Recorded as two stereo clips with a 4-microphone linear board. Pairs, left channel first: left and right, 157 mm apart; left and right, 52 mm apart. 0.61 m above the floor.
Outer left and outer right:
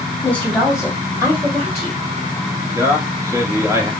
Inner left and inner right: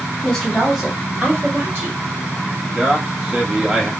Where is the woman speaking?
10° left (ahead or behind), 1.9 m; by 2.0 s 50° right (ahead or behind), 1.9 m.